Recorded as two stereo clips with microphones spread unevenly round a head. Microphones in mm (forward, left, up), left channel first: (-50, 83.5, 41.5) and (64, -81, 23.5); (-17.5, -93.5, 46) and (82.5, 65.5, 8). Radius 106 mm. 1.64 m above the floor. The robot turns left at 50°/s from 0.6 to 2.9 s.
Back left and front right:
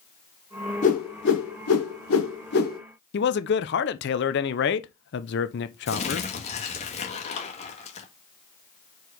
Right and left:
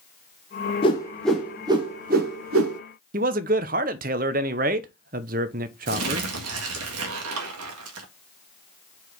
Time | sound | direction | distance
0.8 | a whoosh | 175° left | 1.1 m
3.1 | a man speaking | 110° left | 0.6 m
5.9 | crumpling | 70° left | 1.7 m